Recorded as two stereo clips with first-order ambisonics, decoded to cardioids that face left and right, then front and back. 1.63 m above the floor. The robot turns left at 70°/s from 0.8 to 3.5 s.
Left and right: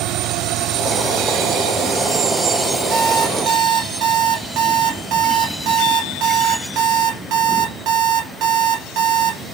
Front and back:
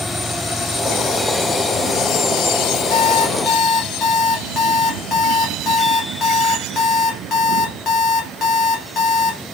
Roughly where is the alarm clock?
Ahead.